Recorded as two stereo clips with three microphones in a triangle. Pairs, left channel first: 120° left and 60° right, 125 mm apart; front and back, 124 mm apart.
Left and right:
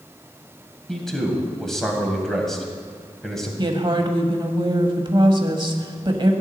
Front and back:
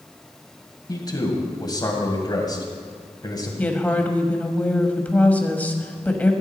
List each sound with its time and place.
0.9 s a man speaking: 35° left, 1.9 m
3.6 s a woman speaking: 70° right, 1.2 m